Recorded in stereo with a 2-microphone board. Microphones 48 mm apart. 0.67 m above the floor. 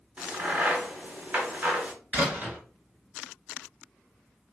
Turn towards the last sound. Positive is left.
turn(degrees=-30)  # may be behind; listen again after turning